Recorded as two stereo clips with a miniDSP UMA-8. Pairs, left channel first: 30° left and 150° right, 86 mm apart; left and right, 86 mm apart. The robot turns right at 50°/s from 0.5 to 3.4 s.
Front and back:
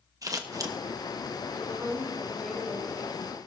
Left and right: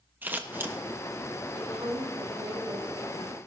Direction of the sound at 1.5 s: 105° right.